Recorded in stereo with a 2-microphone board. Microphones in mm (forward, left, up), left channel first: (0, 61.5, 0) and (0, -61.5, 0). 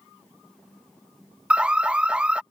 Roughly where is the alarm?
Centre.